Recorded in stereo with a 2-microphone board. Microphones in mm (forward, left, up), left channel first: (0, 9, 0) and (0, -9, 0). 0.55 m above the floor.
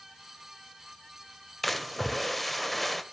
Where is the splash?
Centre (ahead or behind), 1.8 m.